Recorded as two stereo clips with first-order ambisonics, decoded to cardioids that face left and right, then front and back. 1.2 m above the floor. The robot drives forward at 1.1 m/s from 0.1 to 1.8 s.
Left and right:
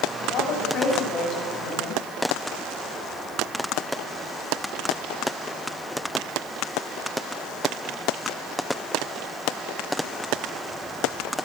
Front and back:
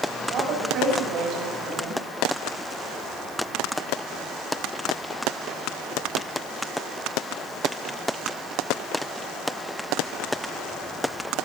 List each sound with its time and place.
0.3 s a woman speaking: 135° left, 8 m; by 2.0 s 140° left, 9.5 m